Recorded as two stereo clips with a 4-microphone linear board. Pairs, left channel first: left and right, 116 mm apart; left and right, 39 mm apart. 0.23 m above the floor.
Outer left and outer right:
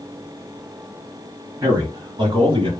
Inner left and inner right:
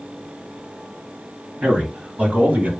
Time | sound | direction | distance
1.6 | a man speaking | 30° right (ahead or behind) | 1.2 m